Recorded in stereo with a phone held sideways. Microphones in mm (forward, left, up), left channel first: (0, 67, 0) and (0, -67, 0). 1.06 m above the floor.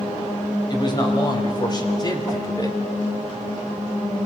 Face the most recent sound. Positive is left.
turn(degrees=25)  # may be behind; listen again after turning